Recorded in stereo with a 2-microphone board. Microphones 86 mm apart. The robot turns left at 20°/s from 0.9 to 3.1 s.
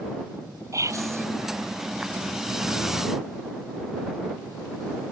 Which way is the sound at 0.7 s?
40° right (ahead or behind).